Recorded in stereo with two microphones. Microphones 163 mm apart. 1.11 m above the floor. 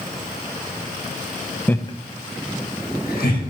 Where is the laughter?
10° left (ahead or behind), 0.5 m; by 3.4 s 75° left (ahead or behind), 1.9 m.